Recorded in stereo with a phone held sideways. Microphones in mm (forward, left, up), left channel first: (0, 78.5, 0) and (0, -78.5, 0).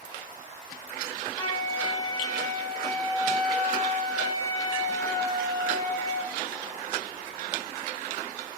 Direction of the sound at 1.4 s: 25° left (ahead or behind).